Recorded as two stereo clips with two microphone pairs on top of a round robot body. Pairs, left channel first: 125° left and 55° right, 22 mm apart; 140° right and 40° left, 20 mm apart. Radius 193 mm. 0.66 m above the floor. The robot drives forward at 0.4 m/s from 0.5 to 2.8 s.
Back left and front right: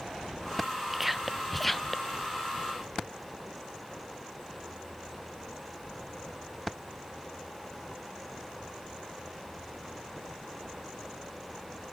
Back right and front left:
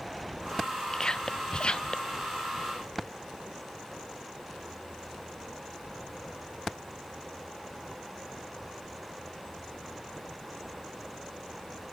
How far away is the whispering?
About 0.7 m.